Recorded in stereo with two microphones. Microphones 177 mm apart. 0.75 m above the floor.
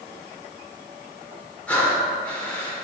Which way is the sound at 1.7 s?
10° left (ahead or behind).